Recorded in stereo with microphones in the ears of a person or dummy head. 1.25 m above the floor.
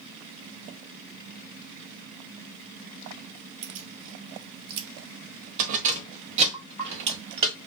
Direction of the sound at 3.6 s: 65° right (ahead or behind).